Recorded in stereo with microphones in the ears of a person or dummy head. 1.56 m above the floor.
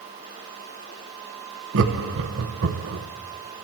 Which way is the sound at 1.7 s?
70° right (ahead or behind).